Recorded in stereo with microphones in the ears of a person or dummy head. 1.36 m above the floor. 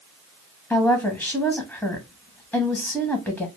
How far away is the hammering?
I don't hear hammering.